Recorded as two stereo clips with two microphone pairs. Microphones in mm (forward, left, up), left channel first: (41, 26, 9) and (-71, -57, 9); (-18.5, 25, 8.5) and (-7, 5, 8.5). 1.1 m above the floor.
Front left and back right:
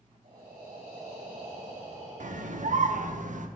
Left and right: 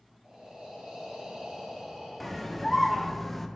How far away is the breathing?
About 3 m.